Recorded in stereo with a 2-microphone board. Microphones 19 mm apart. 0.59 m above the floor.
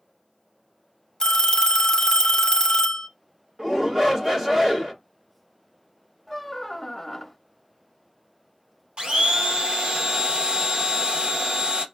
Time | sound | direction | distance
1.2 | a phone ringing | 35° left (ahead or behind) | 0.7 m
3.6 | a shout | 20° right (ahead or behind) | 1.4 m
6.3 | a squeak | centre (ahead or behind) | 0.5 m
9.0 | a blender | 60° right (ahead or behind) | 0.9 m